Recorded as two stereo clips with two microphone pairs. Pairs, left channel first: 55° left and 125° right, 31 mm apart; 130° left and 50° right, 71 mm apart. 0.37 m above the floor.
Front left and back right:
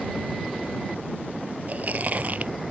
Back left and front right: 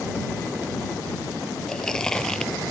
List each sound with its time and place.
1.7 s chewing: 150° right